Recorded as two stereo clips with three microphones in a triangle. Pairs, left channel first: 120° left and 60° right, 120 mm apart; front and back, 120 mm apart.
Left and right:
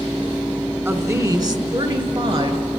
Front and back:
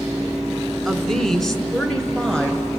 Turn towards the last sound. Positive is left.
turn(degrees=-80)